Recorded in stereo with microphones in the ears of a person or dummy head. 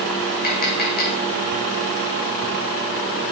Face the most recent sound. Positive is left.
turn(degrees=50)  # may be behind; listen again after turning